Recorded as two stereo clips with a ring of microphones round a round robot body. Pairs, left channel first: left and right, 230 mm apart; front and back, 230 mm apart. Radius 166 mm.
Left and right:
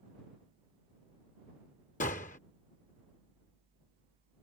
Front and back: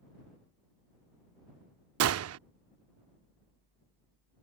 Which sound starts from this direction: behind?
A gunshot, at 2.0 s.